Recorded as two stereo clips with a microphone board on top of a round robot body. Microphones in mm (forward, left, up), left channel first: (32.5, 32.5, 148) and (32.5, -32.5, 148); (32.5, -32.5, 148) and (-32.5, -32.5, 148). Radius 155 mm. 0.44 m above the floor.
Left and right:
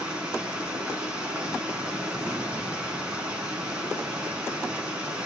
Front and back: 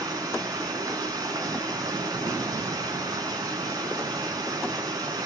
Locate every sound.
0.0 s running water: 165° right, 4 m